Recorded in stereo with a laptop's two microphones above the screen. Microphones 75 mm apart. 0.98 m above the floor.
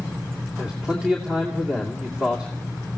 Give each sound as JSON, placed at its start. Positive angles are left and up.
{"t": 0.6, "sound": "a man speaking", "side_deg": -15, "distance_m": 2.5}